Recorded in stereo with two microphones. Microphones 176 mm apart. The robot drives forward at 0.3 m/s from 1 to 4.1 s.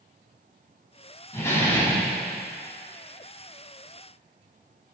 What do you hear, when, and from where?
1.3 s a door slam: 15° left (ahead or behind), 4.5 m